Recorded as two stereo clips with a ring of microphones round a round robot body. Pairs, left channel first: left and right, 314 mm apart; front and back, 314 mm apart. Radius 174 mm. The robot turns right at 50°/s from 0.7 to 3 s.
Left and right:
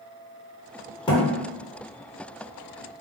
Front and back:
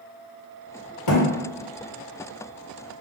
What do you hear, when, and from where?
1.1 s a thud: 15° left, 1.2 m; by 1.2 s 25° left, 1.2 m